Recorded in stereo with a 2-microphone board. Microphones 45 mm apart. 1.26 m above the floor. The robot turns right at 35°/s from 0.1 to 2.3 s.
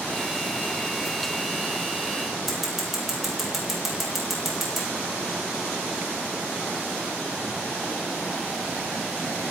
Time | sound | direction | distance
2.5 | scissors | 5° right (ahead or behind) | 6.5 m